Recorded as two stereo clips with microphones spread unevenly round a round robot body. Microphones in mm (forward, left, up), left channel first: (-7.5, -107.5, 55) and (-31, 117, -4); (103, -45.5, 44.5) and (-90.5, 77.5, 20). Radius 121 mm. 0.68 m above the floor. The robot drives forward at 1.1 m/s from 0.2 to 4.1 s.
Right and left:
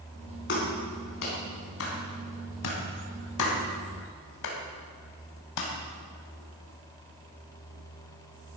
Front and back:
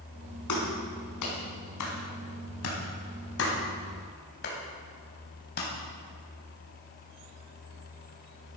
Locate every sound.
0.5 s a clap: 35° right, 5.5 m; by 5.7 s 85° right, 3.5 m